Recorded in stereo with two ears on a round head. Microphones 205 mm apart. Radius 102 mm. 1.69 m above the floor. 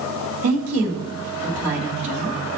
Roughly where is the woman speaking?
Right.